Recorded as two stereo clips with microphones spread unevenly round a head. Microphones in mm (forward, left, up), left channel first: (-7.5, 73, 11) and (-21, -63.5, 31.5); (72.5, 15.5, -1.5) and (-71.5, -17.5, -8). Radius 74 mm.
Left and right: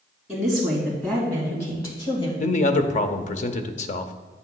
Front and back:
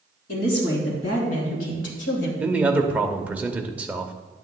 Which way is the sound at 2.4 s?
115° left.